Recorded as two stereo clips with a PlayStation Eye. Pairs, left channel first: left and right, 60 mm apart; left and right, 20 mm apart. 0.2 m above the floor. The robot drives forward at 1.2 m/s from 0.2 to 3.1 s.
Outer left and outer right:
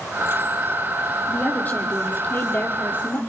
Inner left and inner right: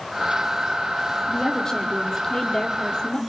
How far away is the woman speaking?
About 6.5 m.